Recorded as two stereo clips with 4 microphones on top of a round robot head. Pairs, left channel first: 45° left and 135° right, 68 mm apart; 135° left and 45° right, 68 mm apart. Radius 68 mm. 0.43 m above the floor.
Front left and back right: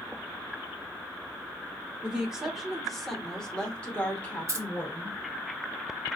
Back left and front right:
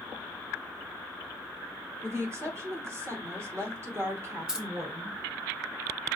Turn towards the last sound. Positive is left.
turn(degrees=-125)